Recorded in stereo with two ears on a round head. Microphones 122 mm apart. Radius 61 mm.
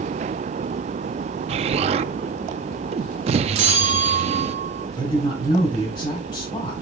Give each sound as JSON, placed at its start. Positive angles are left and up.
{"t": 1.5, "sound": "an explosion", "side_deg": -45, "distance_m": 0.5}
{"t": 3.5, "sound": "a bell", "side_deg": -50, "distance_m": 1.3}
{"t": 5.0, "sound": "a woman speaking", "side_deg": 35, "distance_m": 4.5}